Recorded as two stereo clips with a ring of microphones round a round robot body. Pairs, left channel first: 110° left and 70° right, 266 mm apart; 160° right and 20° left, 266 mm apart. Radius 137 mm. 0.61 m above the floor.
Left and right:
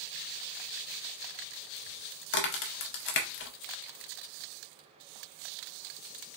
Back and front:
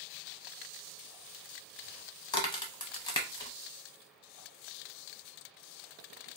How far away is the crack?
About 0.5 m.